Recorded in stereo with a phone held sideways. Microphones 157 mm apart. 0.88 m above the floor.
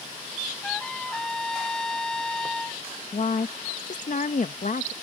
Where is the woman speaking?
60° left (ahead or behind).